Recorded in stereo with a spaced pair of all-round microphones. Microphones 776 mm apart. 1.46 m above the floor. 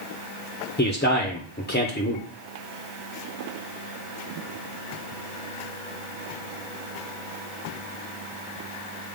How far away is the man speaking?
About 1.0 m.